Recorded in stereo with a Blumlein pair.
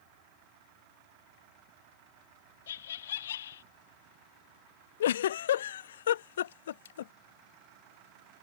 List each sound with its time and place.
2.7 s laughter: 60° left
5.0 s a giggle: 60° left